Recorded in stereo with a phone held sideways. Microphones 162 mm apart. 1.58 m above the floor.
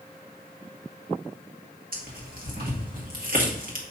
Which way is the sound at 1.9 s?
65° right (ahead or behind).